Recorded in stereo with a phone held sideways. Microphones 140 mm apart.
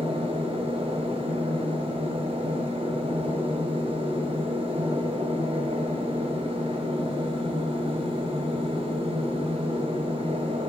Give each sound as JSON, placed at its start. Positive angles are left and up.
{"t": 0.0, "sound": "a machine running", "side_deg": -40, "distance_m": 2.5}